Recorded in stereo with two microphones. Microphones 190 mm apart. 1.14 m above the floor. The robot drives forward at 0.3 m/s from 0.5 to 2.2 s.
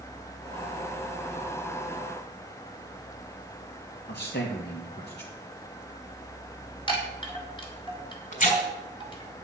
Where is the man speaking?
60° left (ahead or behind), 1.7 m.